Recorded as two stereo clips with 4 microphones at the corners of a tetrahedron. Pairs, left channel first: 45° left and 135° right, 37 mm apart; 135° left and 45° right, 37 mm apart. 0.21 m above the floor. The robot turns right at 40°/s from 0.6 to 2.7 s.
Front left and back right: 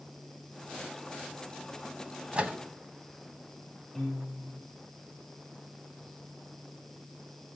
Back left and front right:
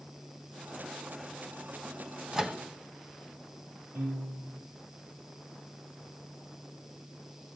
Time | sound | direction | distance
2.3 | a microwave | 110° right | 1.2 m
4.0 | a piano | 40° right | 6 m